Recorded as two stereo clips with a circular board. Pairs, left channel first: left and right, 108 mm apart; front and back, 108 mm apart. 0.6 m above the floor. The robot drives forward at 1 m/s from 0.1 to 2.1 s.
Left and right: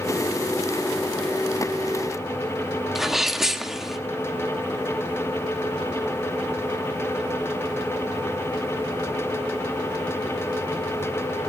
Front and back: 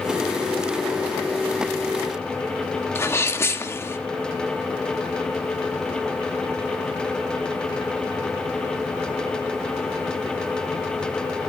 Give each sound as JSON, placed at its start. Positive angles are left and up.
{"t": 3.0, "sound": "a sneeze", "azimuth_deg": -5, "distance_m": 1.2}